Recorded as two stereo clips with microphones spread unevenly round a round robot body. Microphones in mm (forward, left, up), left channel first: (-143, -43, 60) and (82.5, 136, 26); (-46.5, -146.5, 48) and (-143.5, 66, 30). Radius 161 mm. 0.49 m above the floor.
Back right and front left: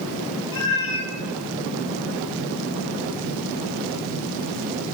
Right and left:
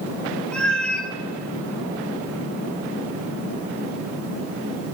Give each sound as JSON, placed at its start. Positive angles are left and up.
{"t": 0.5, "sound": "a cat meowing", "azimuth_deg": -150, "distance_m": 1.3}